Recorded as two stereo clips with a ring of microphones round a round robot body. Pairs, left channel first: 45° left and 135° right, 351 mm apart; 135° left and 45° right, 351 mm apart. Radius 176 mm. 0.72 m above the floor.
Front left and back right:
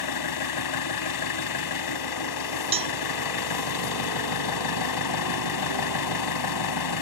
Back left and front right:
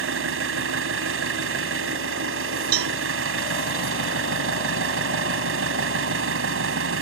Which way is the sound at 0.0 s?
10° left.